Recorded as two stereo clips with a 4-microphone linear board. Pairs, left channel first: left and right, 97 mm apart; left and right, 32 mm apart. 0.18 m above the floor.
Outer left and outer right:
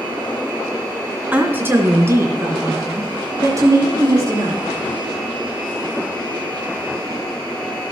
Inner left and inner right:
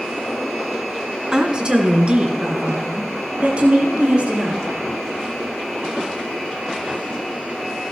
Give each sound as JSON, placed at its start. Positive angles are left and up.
{"t": 1.3, "sound": "a woman speaking", "side_deg": -20, "distance_m": 1.9}